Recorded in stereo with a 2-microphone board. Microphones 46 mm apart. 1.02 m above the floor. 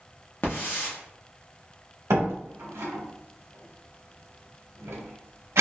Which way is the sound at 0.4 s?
55° left (ahead or behind).